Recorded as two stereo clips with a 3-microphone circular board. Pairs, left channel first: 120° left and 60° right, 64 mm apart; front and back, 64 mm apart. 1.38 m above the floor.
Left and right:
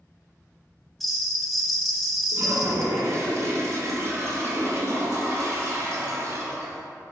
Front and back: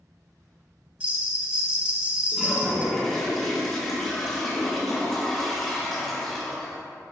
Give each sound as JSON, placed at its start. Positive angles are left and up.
{"t": 1.0, "sound": "a bell", "azimuth_deg": -150, "distance_m": 1.0}
{"t": 2.3, "sound": "a toilet flushing", "azimuth_deg": -80, "distance_m": 2.0}